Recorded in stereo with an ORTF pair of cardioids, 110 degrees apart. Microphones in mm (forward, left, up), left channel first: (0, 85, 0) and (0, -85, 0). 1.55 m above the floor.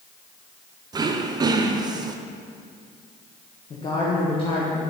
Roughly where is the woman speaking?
Ahead left.